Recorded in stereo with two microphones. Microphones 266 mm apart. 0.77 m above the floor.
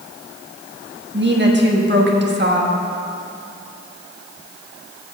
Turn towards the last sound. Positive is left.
turn(degrees=-40)  # may be behind; listen again after turning